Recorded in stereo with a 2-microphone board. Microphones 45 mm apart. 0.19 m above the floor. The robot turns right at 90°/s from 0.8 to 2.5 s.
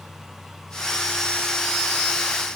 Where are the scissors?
I don't hear scissors.